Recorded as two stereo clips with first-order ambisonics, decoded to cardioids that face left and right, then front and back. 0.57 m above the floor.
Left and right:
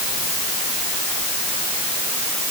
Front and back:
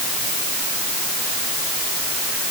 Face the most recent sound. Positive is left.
No sound to turn to.